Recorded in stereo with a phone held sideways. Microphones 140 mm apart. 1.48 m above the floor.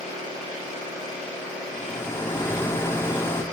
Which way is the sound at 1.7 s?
15° left (ahead or behind).